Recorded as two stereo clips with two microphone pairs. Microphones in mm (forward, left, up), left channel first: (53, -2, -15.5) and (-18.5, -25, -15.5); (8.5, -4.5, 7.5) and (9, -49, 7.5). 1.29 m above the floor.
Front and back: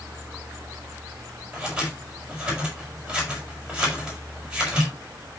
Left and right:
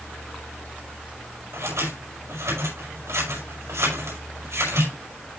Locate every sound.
1.5 s scissors: 80° right, 6 m